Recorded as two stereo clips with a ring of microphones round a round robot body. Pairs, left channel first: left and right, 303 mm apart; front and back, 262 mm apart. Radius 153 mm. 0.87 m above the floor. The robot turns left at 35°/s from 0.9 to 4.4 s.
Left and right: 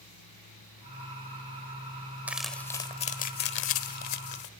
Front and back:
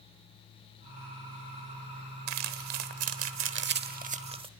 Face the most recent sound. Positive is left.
turn(degrees=110)